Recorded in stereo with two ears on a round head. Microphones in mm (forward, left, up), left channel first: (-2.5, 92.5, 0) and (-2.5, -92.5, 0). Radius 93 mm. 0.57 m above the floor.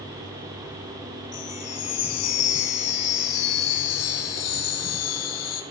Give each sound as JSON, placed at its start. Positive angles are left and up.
{"t": 1.3, "sound": "a chime", "side_deg": 85, "distance_m": 2.5}